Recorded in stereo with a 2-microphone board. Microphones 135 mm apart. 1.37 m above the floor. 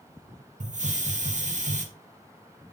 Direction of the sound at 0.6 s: 65° right (ahead or behind).